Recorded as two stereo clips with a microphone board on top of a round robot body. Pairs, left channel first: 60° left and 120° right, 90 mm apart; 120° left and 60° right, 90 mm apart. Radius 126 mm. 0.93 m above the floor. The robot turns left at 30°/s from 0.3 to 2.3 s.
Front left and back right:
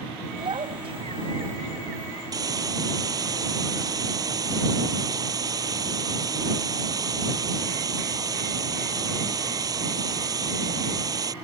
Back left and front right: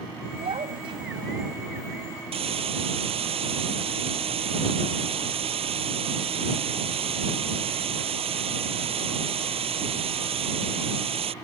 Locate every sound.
0.4 s a child speaking: 80° right; by 1.6 s 115° right
2.3 s a hiss: 70° right